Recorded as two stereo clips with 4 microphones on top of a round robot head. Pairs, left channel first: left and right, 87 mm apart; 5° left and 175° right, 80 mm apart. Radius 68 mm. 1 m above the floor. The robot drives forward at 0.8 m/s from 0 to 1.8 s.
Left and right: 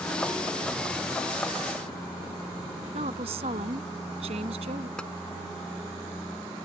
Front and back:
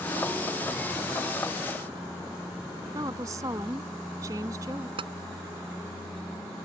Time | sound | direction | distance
2.9 | a woman speaking | 115° right | ?
5.0 | tapping | 175° left | ?